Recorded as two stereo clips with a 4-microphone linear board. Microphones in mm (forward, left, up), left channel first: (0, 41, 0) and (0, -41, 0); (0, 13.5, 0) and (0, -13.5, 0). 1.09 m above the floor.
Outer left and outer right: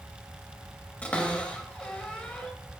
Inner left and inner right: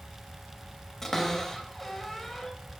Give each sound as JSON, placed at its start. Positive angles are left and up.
{"t": 1.0, "sound": "a cupboard door", "side_deg": 15, "distance_m": 1.1}